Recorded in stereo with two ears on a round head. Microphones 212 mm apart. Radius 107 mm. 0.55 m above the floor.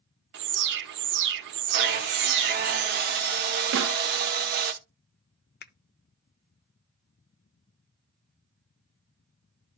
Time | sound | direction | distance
0.3 | an alarm | 50° right (ahead or behind) | 0.9 m
1.7 | sawing | 45° right (ahead or behind) | 1.5 m
3.7 | a snare drum | 50° right (ahead or behind) | 0.8 m
5.6 | a finger snap | 45° left (ahead or behind) | 0.6 m